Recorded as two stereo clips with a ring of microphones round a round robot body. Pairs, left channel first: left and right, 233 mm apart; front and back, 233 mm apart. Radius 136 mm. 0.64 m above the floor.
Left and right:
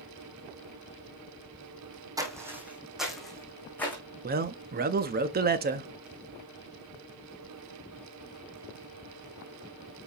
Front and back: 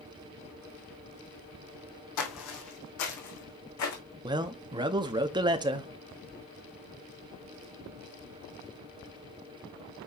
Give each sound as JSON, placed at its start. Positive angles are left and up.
{"t": 2.2, "sound": "footsteps", "azimuth_deg": -15, "distance_m": 2.0}
{"t": 4.2, "sound": "a man speaking", "azimuth_deg": -115, "distance_m": 0.7}